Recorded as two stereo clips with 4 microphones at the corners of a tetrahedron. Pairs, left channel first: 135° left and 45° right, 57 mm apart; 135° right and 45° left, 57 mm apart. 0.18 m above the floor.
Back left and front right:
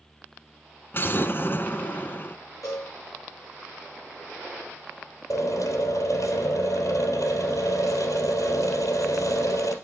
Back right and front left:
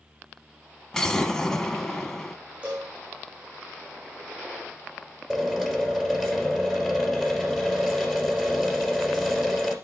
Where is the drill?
130° left, 3 m.